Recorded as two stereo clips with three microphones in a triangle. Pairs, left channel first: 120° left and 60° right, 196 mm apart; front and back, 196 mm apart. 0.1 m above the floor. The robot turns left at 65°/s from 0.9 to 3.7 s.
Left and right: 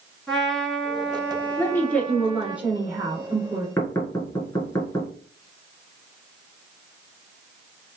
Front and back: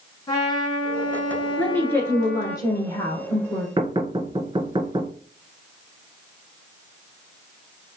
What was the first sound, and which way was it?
A trumpet, 35° left.